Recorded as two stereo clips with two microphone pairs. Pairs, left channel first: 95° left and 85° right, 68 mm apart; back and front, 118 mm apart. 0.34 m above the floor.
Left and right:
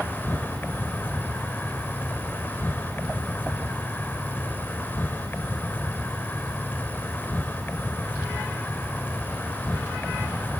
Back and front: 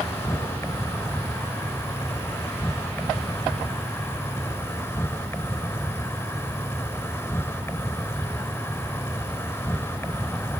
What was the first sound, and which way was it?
An insect, 125° left.